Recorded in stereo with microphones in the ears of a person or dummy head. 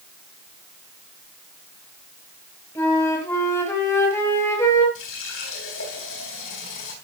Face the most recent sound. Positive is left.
turn(degrees=75)  # may be behind; listen again after turning